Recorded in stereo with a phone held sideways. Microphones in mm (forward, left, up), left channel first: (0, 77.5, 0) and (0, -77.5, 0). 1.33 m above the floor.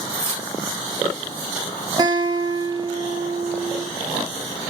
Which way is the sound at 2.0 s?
25° right (ahead or behind).